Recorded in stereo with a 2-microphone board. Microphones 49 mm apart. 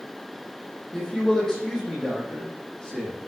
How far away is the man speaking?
About 7 m.